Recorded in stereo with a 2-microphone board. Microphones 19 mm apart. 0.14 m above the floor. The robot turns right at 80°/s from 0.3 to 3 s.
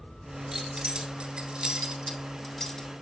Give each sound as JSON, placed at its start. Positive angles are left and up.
{"t": 0.5, "sound": "keys jangling", "side_deg": -25, "distance_m": 1.3}